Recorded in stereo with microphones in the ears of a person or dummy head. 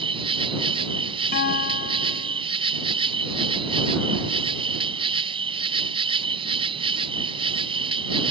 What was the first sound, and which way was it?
An insect, 25° right (ahead or behind).